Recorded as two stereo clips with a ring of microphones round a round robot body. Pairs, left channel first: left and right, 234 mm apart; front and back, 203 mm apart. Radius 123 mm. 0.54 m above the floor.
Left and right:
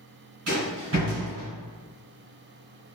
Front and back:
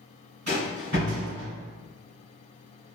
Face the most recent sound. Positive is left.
turn(degrees=-130)